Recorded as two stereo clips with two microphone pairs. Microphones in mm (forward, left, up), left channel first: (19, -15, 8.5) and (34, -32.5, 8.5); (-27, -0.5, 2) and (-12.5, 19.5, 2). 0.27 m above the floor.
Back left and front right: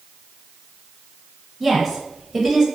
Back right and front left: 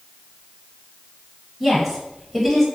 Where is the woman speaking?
15° right, 0.9 m.